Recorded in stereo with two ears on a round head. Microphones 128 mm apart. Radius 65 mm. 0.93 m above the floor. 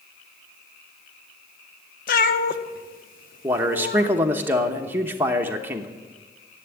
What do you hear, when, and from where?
2.1 s a cat meowing: 60° left (ahead or behind), 0.8 m
3.4 s a man speaking: 15° right (ahead or behind), 0.9 m